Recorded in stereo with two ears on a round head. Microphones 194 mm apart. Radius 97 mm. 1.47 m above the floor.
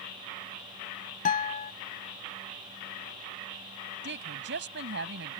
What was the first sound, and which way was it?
A guitar, 35° left (ahead or behind).